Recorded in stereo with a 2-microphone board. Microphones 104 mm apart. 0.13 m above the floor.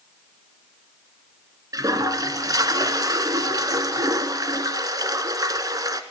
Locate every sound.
1.7 s a toilet flushing: 40° right (ahead or behind), 0.7 m